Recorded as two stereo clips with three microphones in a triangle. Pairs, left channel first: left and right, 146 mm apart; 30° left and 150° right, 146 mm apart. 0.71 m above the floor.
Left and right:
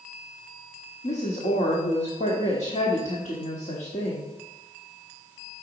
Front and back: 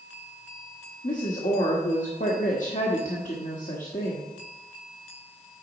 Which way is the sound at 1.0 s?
55° left.